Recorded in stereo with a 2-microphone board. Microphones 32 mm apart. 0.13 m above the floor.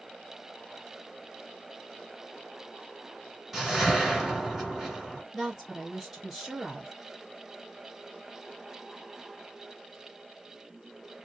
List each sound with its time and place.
3.5 s a whoosh: 5° right (ahead or behind), 1.5 m
5.3 s a woman speaking: 10° right (ahead or behind), 2.0 m